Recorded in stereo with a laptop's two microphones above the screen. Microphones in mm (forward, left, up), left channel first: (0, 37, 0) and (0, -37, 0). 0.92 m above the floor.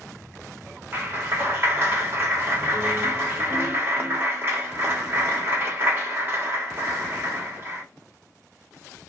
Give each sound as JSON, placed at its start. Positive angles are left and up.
{"t": 0.9, "sound": "a clap", "side_deg": -30, "distance_m": 1.2}